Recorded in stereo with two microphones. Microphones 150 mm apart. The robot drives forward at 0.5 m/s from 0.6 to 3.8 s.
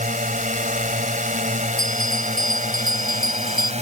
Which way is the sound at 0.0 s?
60° right (ahead or behind).